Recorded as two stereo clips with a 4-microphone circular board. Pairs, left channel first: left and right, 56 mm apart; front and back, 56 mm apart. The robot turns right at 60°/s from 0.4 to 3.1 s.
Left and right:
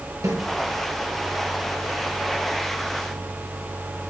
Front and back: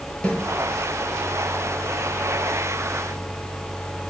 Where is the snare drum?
70° right, 5 m.